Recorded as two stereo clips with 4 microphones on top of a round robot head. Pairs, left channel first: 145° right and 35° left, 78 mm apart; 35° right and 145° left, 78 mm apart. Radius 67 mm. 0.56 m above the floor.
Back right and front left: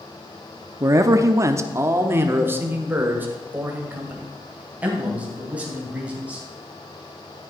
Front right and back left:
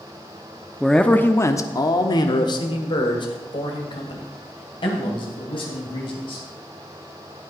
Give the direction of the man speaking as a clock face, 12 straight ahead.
10 o'clock.